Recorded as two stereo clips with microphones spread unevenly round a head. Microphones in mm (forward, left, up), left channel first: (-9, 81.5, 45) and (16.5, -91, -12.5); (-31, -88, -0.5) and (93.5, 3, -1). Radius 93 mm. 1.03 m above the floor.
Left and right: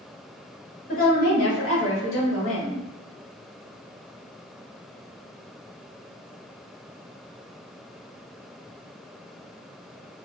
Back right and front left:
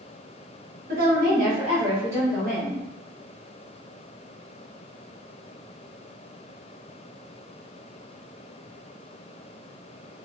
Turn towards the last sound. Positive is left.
turn(degrees=130)